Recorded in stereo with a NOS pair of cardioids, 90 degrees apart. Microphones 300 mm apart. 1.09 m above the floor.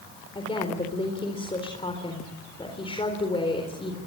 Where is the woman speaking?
15° left, 4 m.